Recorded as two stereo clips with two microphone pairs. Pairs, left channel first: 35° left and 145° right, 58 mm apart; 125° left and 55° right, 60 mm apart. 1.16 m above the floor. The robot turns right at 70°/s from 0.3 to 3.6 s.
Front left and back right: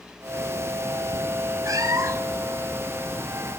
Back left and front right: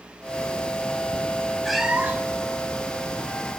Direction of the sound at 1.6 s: 145° right.